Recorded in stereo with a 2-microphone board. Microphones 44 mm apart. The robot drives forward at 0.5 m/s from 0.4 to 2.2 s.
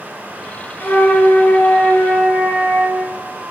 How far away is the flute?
About 1.1 m.